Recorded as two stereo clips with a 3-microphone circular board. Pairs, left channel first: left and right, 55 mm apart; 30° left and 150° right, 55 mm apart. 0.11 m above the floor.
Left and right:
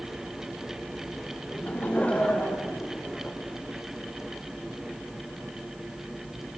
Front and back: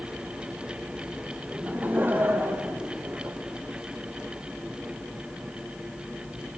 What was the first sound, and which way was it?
Laughter, 145° left.